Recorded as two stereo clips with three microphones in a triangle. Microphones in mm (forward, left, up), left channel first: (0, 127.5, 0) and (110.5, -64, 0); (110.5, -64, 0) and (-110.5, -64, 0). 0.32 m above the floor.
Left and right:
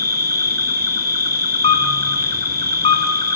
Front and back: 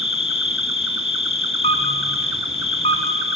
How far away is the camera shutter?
About 2.5 m.